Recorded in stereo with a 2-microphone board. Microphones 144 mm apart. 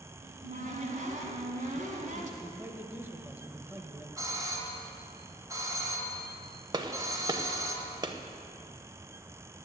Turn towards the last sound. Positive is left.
turn(degrees=-30)  # may be behind; listen again after turning